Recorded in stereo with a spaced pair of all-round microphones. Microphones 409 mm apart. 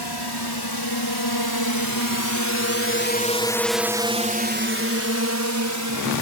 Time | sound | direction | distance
0.0 | a drone | 75° left (ahead or behind) | ?